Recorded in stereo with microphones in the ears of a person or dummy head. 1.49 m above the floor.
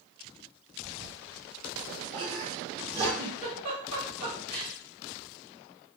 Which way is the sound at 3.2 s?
35° right (ahead or behind).